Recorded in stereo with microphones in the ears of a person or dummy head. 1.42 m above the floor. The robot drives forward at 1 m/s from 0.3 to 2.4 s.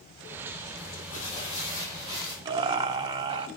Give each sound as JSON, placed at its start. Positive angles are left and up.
{"t": 0.8, "sound": "crumpling", "side_deg": 60, "distance_m": 0.9}
{"t": 2.5, "sound": "laughter", "side_deg": -25, "distance_m": 0.6}